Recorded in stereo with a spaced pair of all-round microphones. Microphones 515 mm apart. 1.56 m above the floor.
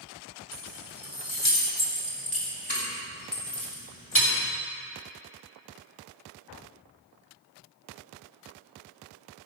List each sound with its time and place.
0.5 s keys jangling: 25° left (ahead or behind), 3 m; by 4.3 s 75° left (ahead or behind), 2.5 m